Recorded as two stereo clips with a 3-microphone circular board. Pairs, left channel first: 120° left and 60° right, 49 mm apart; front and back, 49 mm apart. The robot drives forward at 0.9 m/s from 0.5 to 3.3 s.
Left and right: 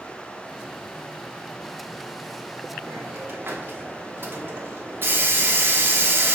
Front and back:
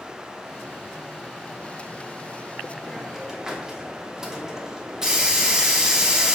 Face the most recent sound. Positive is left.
turn(degrees=-100)